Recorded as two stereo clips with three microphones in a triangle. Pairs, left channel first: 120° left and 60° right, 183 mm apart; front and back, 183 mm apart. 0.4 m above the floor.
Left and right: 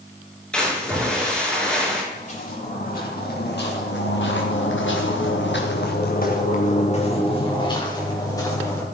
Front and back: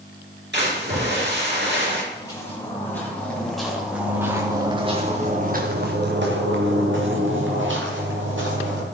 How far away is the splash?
About 4.5 m.